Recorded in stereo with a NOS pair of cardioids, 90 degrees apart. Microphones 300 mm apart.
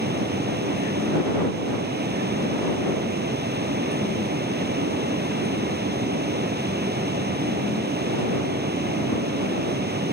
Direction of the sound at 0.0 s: 35° right.